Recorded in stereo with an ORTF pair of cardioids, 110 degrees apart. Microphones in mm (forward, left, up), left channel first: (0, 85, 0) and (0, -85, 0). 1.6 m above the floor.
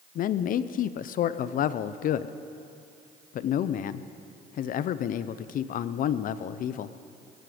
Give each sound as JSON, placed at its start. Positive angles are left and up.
{"t": 0.1, "sound": "a man speaking", "azimuth_deg": 55, "distance_m": 0.6}